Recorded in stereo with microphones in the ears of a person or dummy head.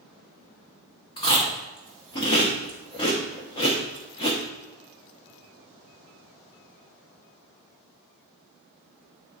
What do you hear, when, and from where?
1.2 s chewing: 25° left (ahead or behind), 0.9 m